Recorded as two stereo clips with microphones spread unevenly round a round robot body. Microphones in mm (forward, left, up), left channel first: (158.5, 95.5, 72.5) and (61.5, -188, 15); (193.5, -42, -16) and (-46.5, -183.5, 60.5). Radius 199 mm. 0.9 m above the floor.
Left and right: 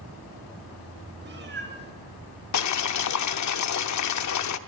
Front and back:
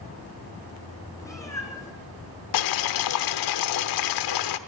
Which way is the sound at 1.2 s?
50° right.